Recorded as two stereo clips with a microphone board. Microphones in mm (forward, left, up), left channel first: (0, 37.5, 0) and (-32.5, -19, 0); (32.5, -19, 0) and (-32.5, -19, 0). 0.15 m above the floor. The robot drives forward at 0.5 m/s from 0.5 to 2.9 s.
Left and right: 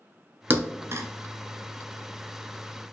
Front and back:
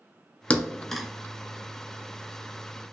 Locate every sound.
0.5 s a thud: 65° right, 0.7 m; by 1.1 s 90° right, 0.7 m